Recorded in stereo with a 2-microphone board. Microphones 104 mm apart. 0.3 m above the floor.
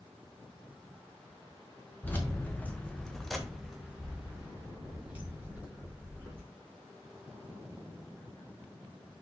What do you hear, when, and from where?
2.0 s keys jangling: 15° left (ahead or behind), 0.9 m; by 6.4 s 15° right (ahead or behind), 2 m